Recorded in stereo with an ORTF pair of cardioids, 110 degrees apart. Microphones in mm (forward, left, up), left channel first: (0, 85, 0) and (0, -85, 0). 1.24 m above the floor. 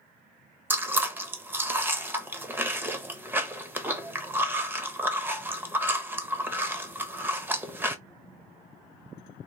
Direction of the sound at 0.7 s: 10° right.